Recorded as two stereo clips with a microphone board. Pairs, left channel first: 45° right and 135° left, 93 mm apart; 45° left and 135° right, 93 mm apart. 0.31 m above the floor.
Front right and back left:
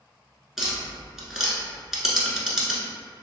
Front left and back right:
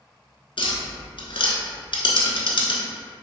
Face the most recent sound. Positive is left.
turn(degrees=50)